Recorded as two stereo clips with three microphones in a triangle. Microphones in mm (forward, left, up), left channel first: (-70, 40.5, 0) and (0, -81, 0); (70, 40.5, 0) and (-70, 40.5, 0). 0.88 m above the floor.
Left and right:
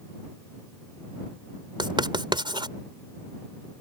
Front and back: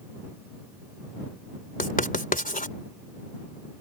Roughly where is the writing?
Ahead.